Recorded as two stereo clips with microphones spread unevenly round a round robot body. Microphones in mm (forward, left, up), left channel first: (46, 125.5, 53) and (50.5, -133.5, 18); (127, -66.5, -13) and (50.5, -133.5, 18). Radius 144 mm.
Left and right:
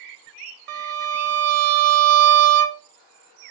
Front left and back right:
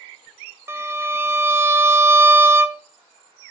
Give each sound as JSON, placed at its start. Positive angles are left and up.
{"t": 0.7, "sound": "a violin", "azimuth_deg": -65, "distance_m": 0.7}